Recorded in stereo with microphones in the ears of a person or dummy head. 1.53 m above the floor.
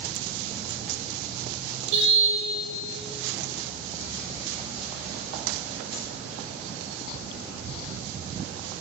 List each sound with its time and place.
1.9 s a car horn: 75° right (ahead or behind), 4 m